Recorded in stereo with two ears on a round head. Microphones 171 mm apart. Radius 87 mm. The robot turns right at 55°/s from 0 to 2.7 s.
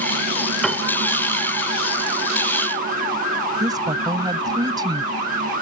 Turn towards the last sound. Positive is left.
turn(degrees=-25)  # may be behind; listen again after turning